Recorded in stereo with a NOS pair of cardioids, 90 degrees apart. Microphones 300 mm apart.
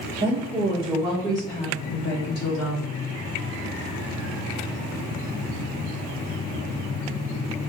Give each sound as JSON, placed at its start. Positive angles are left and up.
{"t": 0.2, "sound": "a woman speaking", "azimuth_deg": -30, "distance_m": 2.0}